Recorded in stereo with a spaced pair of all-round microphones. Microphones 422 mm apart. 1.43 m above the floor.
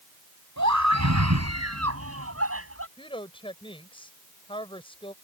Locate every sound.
0.6 s a scream: 40° right (ahead or behind); by 2.9 s 30° right (ahead or behind)
3.0 s a woman speaking: 10° left (ahead or behind)